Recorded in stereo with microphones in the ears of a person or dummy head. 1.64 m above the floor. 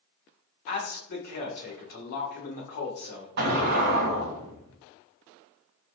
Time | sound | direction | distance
0.7 | a man speaking | 50° left (ahead or behind) | 1.2 m
3.4 | an explosion | 50° right (ahead or behind) | 0.8 m